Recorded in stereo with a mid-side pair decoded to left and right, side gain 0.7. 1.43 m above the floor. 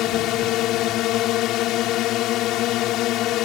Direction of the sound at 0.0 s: 55° left.